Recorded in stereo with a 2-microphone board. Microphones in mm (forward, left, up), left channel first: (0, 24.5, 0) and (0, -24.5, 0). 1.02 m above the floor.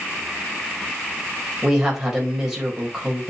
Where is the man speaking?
10° right (ahead or behind), 4 m.